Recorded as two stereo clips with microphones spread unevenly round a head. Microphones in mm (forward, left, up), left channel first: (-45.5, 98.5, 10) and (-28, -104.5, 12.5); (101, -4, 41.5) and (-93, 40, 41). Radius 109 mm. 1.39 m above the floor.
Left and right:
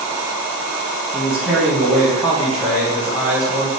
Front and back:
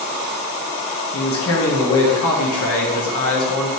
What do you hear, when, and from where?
1.1 s a man speaking: straight ahead, 1.1 m